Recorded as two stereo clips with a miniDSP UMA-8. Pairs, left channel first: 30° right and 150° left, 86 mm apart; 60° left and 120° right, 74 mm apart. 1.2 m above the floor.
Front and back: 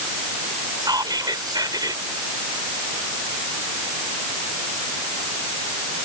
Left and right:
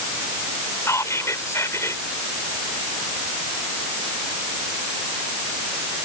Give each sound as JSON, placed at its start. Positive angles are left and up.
{"t": 0.8, "sound": "whispering", "azimuth_deg": 110}